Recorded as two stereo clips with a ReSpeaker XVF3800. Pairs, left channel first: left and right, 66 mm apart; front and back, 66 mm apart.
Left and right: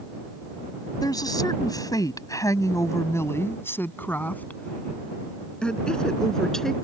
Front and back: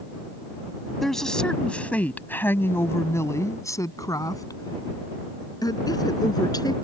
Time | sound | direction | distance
1.0 | a woman speaking | 85° left | ?